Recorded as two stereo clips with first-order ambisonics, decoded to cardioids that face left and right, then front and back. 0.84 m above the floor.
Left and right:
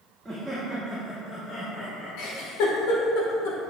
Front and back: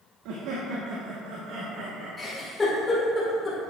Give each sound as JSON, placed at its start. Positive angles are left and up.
{"t": 0.2, "sound": "laughter", "azimuth_deg": -170, "distance_m": 0.9}
{"t": 2.2, "sound": "a giggle", "azimuth_deg": 80, "distance_m": 1.7}